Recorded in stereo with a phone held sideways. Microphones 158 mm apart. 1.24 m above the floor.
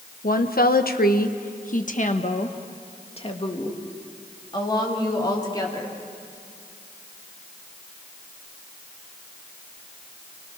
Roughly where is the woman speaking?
Left.